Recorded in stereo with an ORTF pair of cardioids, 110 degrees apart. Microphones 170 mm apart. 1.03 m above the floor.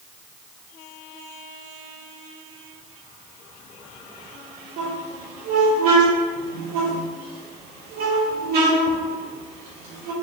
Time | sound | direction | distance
4.8 | a squeak | 65° right | 1.8 m